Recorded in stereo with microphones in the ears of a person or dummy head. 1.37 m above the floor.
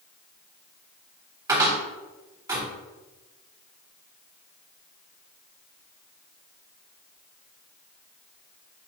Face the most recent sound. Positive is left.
turn(degrees=-20)  # may be behind; listen again after turning